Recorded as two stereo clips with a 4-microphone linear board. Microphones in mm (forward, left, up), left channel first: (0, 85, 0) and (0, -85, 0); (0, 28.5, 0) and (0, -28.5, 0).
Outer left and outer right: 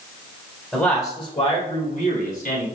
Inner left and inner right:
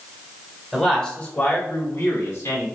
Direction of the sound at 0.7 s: 5° left (ahead or behind).